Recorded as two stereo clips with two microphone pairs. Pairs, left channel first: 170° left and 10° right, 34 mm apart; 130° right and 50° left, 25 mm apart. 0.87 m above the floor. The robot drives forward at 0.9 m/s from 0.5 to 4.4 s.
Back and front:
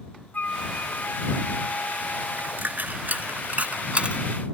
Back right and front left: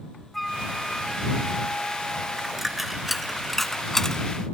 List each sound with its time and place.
0.3 s a flute: 145° left; by 2.9 s 170° left
2.4 s a dropped coin: 25° right; by 4.2 s 65° right